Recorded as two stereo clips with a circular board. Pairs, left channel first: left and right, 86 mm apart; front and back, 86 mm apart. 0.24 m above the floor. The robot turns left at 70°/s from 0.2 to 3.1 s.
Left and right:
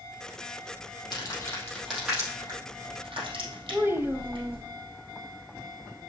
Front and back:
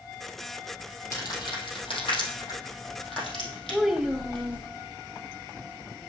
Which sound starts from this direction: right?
A child speaking, at 3.7 s.